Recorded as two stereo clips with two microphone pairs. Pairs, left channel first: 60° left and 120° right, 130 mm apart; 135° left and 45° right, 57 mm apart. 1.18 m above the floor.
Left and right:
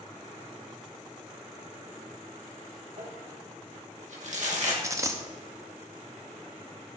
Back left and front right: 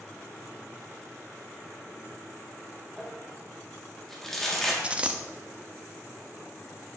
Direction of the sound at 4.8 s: 85° right.